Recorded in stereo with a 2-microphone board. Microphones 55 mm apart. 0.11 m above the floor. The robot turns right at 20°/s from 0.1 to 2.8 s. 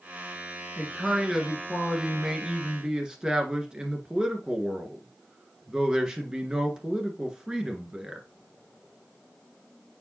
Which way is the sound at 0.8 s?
Centre (ahead or behind).